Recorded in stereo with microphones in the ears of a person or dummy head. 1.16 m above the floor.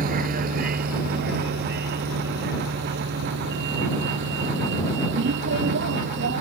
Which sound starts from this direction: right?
A vehicle, at 0.0 s.